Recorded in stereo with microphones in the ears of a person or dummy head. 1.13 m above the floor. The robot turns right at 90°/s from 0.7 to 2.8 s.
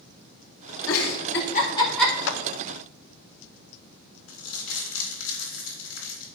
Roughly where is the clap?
Left.